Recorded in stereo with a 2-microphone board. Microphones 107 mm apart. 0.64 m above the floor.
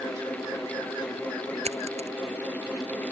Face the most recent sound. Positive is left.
turn(degrees=-80)